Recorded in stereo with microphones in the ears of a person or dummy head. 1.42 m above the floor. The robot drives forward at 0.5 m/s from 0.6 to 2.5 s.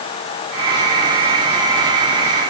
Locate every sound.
Only background noise.